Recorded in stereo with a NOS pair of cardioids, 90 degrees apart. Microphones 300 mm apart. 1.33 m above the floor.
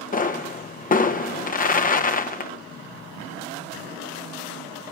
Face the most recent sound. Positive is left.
turn(degrees=25)